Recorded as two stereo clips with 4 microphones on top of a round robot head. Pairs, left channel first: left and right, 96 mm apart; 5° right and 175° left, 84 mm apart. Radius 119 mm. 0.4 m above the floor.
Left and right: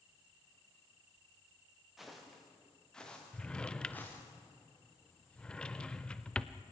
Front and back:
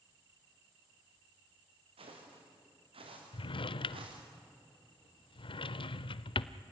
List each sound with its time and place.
2.0 s footsteps: straight behind, 5.5 m; by 4.2 s 160° left, 5 m
3.3 s a drawer: 10° left, 0.6 m